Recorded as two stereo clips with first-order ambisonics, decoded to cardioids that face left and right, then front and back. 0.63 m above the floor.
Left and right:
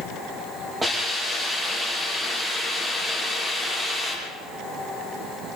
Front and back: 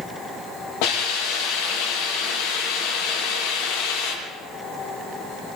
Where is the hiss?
10° right, 7.5 m.